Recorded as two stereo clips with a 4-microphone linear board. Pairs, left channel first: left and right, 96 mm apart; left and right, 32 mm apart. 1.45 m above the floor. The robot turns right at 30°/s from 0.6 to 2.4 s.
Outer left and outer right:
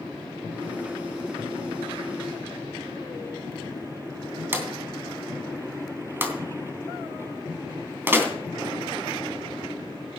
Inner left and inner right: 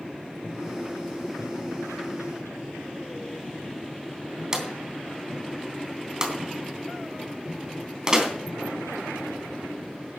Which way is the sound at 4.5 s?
20° right (ahead or behind).